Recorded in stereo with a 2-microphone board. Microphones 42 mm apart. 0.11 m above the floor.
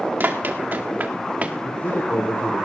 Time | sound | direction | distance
0.2 | running footsteps | 50° right (ahead or behind) | 2 m
1.6 | a man speaking | 55° left (ahead or behind) | 4 m